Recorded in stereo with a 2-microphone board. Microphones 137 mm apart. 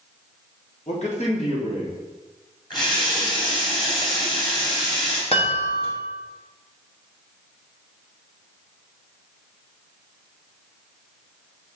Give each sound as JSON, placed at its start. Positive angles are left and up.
{"t": 0.9, "sound": "a man speaking", "side_deg": 60, "distance_m": 1.8}
{"t": 2.7, "sound": "a running tap", "side_deg": 35, "distance_m": 2.5}
{"t": 5.3, "sound": "a chime", "side_deg": 45, "distance_m": 1.3}